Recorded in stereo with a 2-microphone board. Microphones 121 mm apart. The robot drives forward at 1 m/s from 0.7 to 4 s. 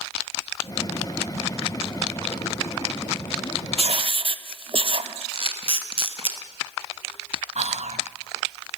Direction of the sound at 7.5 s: 70° right (ahead or behind).